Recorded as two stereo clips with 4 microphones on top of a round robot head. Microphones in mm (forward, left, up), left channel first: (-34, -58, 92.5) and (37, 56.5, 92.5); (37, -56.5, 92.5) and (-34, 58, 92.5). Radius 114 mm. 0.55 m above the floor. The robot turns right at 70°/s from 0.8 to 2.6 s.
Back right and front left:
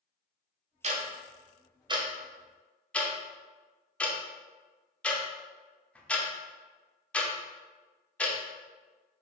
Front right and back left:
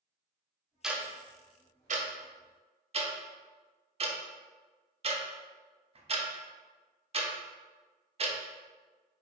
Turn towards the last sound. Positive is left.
turn(degrees=155)